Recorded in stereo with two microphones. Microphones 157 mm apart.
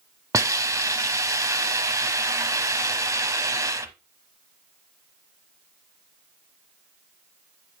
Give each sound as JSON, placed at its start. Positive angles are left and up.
{"t": 0.3, "sound": "a hiss", "side_deg": -20, "distance_m": 1.0}